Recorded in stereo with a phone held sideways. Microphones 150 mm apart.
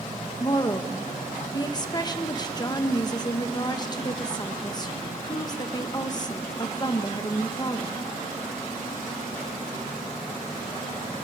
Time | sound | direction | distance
0.4 | a woman speaking | 25° left (ahead or behind) | 1.1 m